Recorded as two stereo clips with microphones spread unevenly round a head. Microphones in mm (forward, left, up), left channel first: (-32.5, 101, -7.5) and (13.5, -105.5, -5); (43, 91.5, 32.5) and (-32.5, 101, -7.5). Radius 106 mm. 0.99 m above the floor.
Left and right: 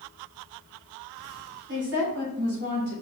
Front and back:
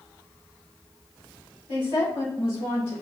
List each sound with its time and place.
1.7 s a woman speaking: 40° right, 3.5 m; by 2.9 s 30° right, 5 m